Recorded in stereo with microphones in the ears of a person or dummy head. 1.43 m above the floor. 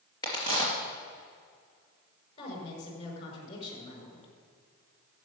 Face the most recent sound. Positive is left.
turn(degrees=45)  # may be behind; listen again after turning